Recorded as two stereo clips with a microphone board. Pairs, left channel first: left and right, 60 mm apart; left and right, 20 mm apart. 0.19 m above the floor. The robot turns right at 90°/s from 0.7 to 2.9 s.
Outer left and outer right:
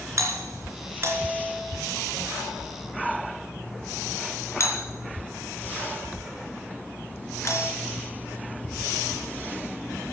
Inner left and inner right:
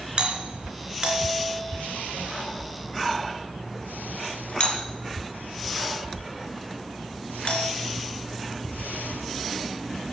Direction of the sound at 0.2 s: 60° right (ahead or behind).